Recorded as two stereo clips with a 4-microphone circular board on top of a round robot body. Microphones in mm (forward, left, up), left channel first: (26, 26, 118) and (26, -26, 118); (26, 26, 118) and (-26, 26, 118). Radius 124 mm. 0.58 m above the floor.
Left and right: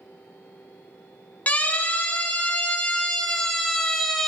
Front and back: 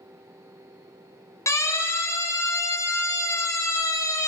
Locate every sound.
1.5 s a siren: 25° left, 4 m; by 4.3 s straight ahead, 3 m